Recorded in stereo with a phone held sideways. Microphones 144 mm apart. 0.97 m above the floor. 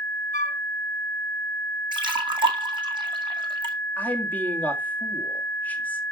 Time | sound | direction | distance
0.3 | a flute | 55° left (ahead or behind) | 1.1 m
1.9 | a splash | 30° right (ahead or behind) | 1.6 m
4.0 | a man speaking | 10° left (ahead or behind) | 2 m